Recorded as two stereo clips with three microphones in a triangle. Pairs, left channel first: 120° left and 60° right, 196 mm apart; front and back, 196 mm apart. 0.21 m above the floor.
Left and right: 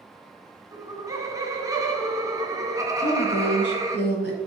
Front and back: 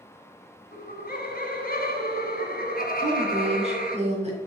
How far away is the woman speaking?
About 2.5 m.